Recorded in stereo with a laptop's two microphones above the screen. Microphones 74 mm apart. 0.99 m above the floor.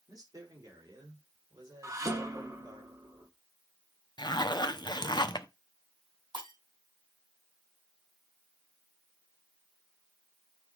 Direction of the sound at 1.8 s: 45° right (ahead or behind).